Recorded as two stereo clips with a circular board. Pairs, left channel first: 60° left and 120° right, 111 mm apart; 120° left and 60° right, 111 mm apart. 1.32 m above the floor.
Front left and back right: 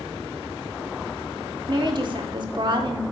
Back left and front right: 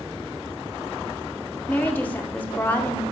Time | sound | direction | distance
1.7 | a woman speaking | 165° right | 0.7 m